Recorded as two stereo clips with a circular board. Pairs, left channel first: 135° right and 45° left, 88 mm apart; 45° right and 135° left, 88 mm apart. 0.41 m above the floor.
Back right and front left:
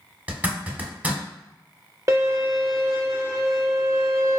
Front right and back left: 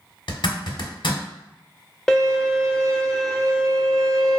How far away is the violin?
About 0.6 m.